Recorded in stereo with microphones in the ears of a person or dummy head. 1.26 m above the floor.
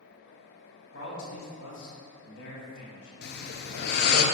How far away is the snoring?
About 0.7 m.